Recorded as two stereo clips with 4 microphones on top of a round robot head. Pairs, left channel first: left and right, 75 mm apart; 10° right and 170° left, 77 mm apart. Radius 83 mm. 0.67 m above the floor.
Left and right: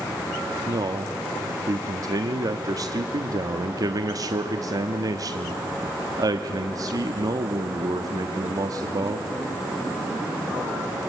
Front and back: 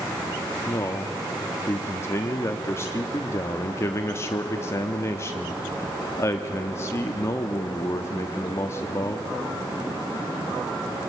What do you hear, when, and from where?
0.7 s a man speaking: 60° right, 1.0 m